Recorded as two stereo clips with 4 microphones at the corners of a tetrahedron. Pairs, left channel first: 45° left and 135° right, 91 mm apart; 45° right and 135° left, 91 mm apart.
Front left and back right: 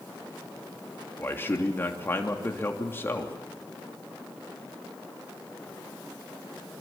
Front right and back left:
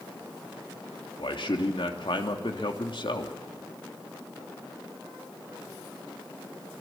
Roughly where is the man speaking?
Ahead.